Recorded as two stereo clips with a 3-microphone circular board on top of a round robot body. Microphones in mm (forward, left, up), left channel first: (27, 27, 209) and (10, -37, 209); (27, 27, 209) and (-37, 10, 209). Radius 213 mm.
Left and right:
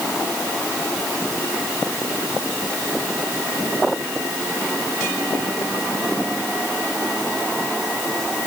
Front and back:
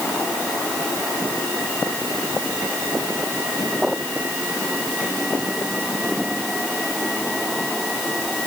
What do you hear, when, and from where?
Only background noise.